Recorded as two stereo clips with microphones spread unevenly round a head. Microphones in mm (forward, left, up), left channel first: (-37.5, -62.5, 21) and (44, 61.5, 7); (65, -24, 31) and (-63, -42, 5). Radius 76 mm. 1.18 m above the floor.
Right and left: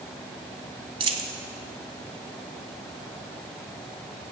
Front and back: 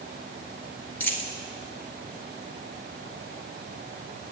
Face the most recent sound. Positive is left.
turn(degrees=35)